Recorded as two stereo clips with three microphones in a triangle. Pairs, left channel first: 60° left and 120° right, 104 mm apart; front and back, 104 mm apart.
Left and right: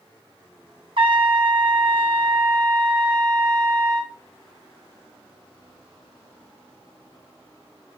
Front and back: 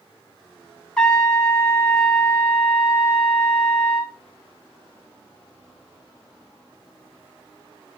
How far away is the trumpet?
About 0.9 m.